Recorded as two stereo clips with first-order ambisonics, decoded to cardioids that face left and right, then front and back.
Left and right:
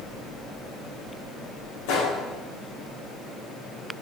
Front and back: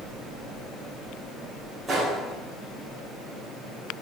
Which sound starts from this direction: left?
A gunshot, at 1.9 s.